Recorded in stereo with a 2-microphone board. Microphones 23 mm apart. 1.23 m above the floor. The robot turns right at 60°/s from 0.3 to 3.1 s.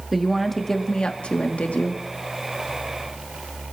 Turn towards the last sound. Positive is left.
turn(degrees=160)